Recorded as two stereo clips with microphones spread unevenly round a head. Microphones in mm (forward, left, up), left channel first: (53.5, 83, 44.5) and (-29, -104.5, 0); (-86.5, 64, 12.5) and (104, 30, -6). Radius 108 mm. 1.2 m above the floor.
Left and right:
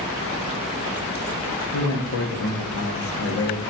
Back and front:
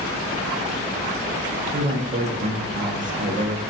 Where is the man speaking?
40° left, 0.7 m.